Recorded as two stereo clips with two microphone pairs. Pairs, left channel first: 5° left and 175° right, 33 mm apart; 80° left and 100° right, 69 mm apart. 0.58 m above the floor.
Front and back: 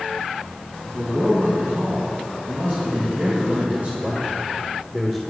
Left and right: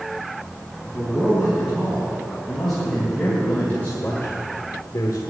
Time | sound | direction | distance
0.8 | a man speaking | 175° left | 4.5 m